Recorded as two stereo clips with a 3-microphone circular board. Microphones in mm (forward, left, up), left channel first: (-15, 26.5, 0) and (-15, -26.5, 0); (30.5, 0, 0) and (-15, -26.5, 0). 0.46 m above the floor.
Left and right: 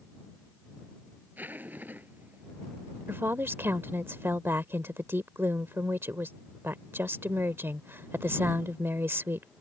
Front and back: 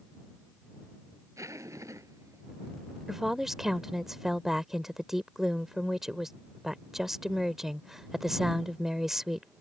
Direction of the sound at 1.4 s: 145° right.